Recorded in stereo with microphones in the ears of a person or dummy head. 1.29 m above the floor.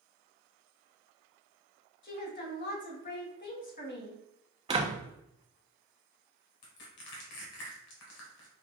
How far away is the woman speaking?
About 1.1 m.